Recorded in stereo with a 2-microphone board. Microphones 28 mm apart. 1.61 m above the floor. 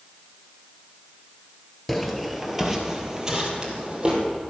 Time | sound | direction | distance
1.9 | footsteps | 5° left (ahead or behind) | 1.8 m